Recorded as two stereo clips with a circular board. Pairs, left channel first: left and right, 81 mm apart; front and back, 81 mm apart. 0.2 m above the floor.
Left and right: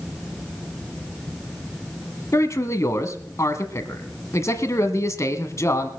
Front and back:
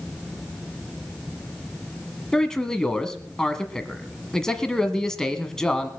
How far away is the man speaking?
About 1.3 m.